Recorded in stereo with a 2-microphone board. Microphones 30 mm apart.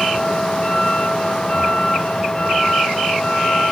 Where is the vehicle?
25° left (ahead or behind).